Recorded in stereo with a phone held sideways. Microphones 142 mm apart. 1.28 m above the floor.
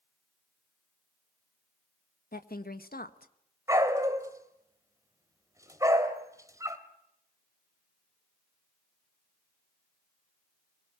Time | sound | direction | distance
2.3 | a woman speaking | 85° left | 1.6 m
3.7 | a dog barking | 20° right (ahead or behind) | 2.5 m